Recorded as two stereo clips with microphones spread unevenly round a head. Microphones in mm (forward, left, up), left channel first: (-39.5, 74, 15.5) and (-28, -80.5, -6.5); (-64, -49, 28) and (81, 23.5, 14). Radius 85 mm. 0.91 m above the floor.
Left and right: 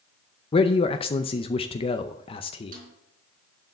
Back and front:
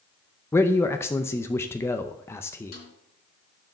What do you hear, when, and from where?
0.5 s a man speaking: 135° left, 0.6 m
2.7 s a snare drum: 120° right, 4 m